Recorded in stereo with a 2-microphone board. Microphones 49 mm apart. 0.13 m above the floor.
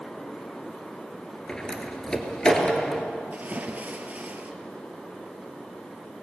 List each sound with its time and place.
1.5 s a door slam: 15° left (ahead or behind), 2 m
3.3 s a splash: 30° right (ahead or behind), 1.6 m